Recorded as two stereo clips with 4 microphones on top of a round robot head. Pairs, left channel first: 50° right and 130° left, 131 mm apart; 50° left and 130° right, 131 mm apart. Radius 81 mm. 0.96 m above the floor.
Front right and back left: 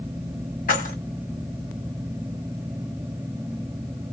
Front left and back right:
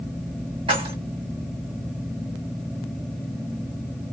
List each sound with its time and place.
0.7 s keys jangling: 75° right, 2 m